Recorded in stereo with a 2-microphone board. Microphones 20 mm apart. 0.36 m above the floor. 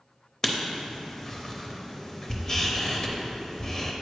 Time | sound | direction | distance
0.4 | writing | 20° left (ahead or behind) | 0.6 m